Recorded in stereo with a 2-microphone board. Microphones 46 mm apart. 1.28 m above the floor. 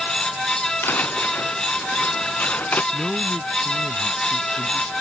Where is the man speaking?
10° left (ahead or behind).